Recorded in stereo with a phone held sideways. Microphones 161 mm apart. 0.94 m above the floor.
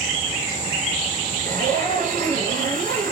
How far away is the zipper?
About 3.5 m.